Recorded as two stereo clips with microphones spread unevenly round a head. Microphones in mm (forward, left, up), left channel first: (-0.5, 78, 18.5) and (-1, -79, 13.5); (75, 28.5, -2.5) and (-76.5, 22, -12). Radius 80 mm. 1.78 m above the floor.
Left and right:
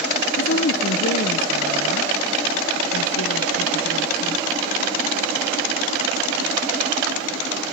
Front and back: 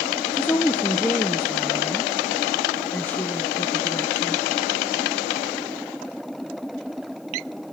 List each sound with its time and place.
0.3 s a woman speaking: 80° left, 1.5 m